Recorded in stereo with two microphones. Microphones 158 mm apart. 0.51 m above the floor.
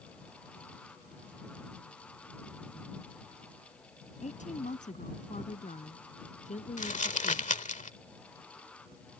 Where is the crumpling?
50° left (ahead or behind).